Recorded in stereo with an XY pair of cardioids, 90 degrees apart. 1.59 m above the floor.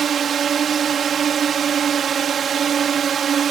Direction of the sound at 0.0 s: 60° right.